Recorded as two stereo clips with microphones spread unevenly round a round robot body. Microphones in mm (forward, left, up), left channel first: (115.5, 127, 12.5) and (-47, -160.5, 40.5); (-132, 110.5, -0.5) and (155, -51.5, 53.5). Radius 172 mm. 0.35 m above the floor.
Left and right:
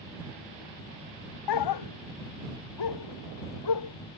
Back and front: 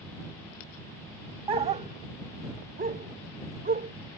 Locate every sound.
1.5 s a dog barking: 45° left; by 3.9 s 35° left